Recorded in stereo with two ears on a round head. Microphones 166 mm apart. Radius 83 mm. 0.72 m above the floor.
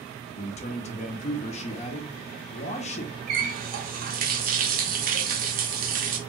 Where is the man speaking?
35° left (ahead or behind), 0.5 m.